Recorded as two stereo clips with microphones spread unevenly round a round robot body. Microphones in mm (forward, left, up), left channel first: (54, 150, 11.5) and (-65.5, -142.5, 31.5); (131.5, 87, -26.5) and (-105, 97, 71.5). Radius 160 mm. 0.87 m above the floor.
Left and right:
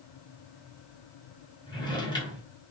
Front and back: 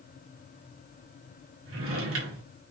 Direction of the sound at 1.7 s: 145° left.